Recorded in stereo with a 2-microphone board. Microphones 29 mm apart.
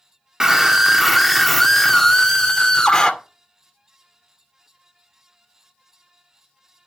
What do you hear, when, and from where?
0.4 s a scream: 20° right (ahead or behind), 1.8 m; by 3.1 s 25° left (ahead or behind), 2 m